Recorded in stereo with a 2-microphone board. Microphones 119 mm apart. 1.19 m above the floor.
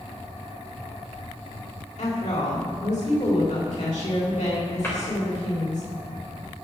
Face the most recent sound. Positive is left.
turn(degrees=20)  # may be behind; listen again after turning